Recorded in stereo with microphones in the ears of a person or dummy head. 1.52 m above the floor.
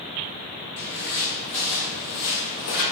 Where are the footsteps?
40° left (ahead or behind), 1.9 m; by 2.8 s 70° left (ahead or behind), 4 m.